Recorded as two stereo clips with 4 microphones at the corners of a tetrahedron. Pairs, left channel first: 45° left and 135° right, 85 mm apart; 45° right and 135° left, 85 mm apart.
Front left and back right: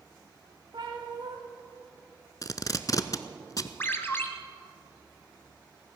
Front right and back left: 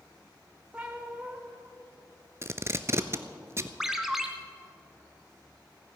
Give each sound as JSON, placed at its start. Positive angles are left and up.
{"t": 0.7, "sound": "a cat meowing", "azimuth_deg": -150, "distance_m": 3.0}
{"t": 2.4, "sound": "tape being pulled", "azimuth_deg": 85, "distance_m": 0.7}
{"t": 3.8, "sound": "a ringtone", "azimuth_deg": 55, "distance_m": 1.1}